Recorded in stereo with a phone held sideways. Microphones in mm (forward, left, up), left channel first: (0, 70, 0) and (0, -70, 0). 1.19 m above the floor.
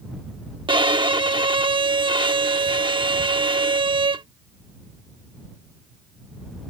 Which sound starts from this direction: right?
A violin, at 0.7 s.